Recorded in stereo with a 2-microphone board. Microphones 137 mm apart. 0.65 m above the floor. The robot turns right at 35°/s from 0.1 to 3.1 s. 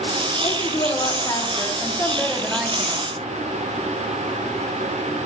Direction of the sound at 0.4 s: 105° left.